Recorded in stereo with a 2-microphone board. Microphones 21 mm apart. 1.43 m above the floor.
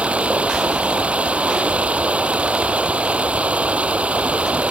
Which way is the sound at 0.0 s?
85° right.